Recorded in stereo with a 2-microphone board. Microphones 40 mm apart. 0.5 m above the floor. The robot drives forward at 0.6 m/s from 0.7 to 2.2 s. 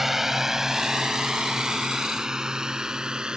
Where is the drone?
10° right (ahead or behind); by 3.4 s 20° right (ahead or behind).